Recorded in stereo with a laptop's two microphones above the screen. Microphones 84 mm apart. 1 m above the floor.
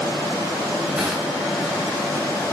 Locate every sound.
1.0 s crushing: 15° right (ahead or behind), 3.5 m